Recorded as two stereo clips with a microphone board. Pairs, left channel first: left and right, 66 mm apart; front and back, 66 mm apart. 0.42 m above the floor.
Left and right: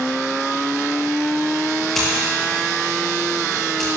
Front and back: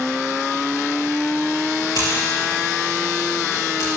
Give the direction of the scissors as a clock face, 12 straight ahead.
12 o'clock.